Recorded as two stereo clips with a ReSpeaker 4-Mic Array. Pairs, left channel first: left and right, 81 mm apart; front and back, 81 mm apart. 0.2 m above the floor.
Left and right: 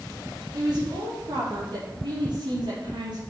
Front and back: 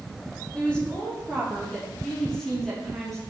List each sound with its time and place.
0.5 s a woman speaking: 75° right, 6 m; by 3.2 s 90° right, 5.5 m